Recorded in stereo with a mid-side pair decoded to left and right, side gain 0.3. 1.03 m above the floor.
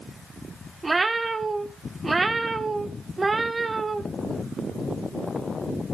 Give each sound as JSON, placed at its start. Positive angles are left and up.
{"t": 0.8, "sound": "a cat meowing", "azimuth_deg": -35, "distance_m": 1.5}